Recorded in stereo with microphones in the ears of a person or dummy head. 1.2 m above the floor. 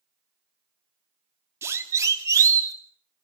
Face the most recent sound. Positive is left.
turn(degrees=-20)  # may be behind; listen again after turning